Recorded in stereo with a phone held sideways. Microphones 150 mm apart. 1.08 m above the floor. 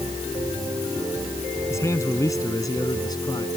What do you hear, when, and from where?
1.7 s a man speaking: 20° left (ahead or behind); by 3.5 s 25° left (ahead or behind)